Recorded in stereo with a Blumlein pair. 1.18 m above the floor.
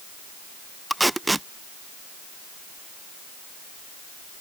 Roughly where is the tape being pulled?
Ahead.